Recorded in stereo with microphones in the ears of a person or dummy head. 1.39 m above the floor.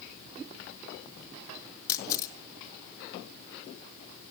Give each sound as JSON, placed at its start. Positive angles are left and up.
{"t": 1.9, "sound": "a camera shutter", "side_deg": 20, "distance_m": 1.1}